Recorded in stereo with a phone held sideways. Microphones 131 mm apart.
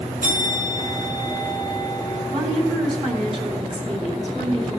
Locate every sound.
0.2 s a bell: 85° right, 4.5 m
2.3 s a woman speaking: 55° right (ahead or behind), 3.5 m